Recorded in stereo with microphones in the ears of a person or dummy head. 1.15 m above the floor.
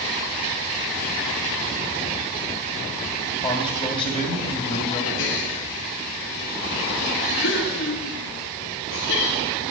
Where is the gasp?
70° left (ahead or behind), 2 m.